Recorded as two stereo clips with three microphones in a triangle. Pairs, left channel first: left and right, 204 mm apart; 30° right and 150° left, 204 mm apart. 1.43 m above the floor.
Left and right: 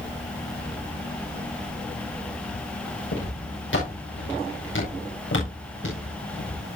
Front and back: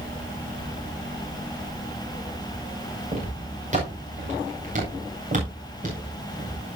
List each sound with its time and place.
3.1 s footsteps: 95° left, 7.5 m; by 6.6 s 100° left, 9.5 m